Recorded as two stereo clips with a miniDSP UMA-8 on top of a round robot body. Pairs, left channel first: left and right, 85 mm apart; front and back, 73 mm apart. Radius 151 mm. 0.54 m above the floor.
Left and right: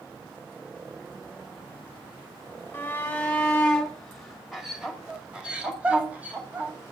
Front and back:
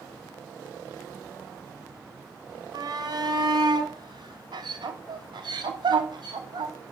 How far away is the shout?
About 2 m.